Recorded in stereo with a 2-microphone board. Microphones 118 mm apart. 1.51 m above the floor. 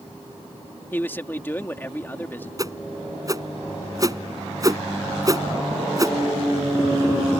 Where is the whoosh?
30° right (ahead or behind).